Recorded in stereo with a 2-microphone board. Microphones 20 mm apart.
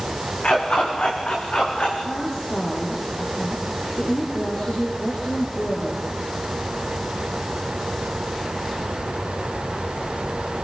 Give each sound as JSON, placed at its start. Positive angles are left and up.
{"t": 0.4, "sound": "a dog barking", "side_deg": 75, "distance_m": 8.5}
{"t": 2.0, "sound": "a woman speaking", "side_deg": 70, "distance_m": 5.5}